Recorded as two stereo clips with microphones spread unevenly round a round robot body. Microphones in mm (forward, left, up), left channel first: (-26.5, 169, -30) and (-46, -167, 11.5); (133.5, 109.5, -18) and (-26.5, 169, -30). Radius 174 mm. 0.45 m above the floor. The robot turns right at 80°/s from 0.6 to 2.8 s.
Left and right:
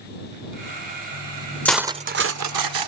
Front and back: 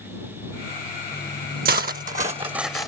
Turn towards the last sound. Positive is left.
turn(degrees=-100)